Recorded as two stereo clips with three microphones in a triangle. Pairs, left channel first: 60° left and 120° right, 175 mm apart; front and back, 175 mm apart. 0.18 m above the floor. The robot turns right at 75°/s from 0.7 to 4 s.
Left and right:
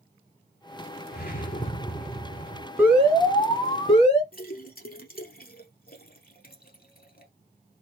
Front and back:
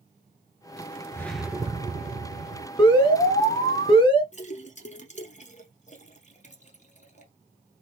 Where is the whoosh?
70° left, 0.8 m; by 2.7 s 170° right, 0.8 m.